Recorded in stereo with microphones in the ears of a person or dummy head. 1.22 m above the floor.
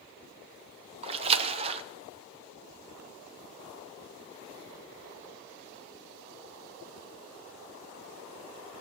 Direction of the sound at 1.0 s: 30° right (ahead or behind).